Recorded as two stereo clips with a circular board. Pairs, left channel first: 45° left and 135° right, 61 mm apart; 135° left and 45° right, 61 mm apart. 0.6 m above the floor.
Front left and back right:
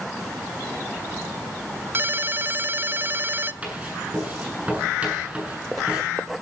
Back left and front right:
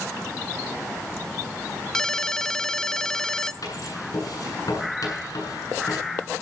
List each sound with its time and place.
1.9 s a ringtone: 150° right, 0.7 m
3.6 s writing: 155° left, 8 m